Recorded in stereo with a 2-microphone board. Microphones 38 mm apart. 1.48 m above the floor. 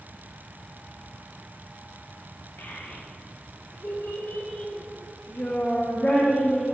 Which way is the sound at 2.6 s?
75° left (ahead or behind).